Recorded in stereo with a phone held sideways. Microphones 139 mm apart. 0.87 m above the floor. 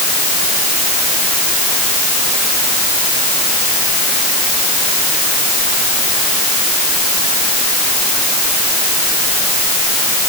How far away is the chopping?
No chopping in this recording.